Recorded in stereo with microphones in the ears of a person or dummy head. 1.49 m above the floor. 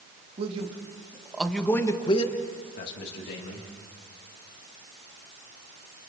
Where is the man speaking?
40° right (ahead or behind), 2.5 m; by 3.7 s 70° left (ahead or behind), 3 m.